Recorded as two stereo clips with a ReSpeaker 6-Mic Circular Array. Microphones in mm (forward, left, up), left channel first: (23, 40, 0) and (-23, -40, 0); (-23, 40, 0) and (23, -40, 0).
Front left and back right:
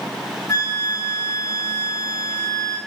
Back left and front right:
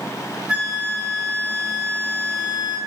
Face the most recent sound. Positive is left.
turn(degrees=20)